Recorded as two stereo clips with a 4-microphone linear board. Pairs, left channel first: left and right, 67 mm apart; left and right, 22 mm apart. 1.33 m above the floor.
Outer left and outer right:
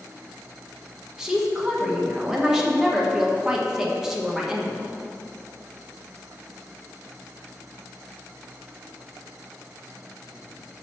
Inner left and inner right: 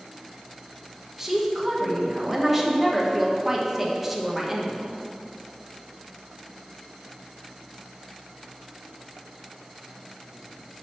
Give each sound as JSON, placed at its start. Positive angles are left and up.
{"t": 1.2, "sound": "a woman speaking", "side_deg": -10, "distance_m": 1.3}